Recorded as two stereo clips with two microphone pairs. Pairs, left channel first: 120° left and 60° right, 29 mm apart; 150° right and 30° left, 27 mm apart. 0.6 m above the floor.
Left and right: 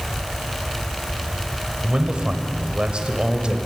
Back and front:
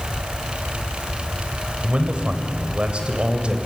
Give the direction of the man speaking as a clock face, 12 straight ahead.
12 o'clock.